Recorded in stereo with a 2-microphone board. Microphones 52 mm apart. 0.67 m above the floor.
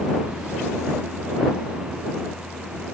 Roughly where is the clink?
No clink in this recording.